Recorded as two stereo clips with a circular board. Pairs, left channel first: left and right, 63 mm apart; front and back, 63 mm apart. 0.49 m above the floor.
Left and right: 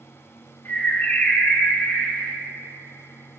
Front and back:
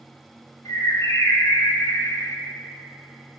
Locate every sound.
0.7 s a bird: 30° left, 1.0 m